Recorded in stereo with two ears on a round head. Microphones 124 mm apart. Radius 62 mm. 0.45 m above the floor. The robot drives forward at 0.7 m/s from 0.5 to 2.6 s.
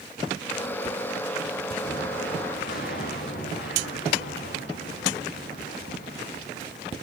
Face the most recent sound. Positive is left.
turn(degrees=75)  # may be behind; listen again after turning